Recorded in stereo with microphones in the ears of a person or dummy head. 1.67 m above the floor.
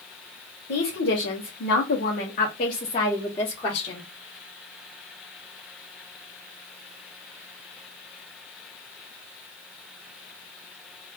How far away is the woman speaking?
About 1.0 m.